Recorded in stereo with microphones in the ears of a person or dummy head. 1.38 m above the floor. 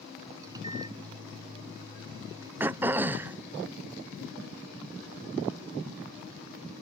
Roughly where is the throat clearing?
Centre.